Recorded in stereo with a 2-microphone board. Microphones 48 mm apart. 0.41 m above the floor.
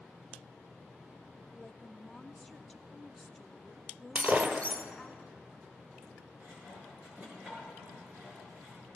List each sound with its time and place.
1.6 s a woman speaking: 5° left (ahead or behind), 0.8 m
4.2 s breaking glass: 40° right (ahead or behind), 1.2 m
6.4 s sawing: 40° right (ahead or behind), 7.5 m